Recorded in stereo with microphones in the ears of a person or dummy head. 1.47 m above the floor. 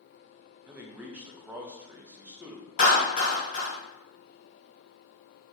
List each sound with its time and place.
0.7 s a man speaking: 10° right (ahead or behind), 0.6 m
2.8 s a clap: 40° left (ahead or behind), 1.7 m